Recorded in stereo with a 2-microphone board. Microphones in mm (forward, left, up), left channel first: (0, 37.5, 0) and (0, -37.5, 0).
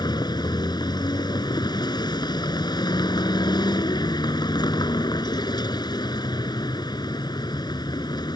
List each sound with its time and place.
0.0 s a vehicle: 75° left (ahead or behind)